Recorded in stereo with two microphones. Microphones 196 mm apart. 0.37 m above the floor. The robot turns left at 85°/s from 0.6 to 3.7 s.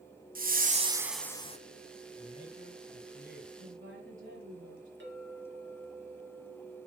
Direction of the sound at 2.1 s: 165° left.